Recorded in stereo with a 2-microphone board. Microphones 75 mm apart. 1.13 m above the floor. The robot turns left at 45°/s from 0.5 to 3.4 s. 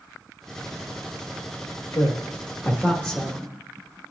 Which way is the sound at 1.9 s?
65° left (ahead or behind).